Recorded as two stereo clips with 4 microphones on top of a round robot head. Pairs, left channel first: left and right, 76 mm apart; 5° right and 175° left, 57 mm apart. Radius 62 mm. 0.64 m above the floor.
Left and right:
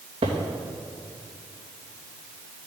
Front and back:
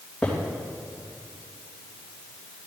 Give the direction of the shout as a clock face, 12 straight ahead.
No shout in this recording.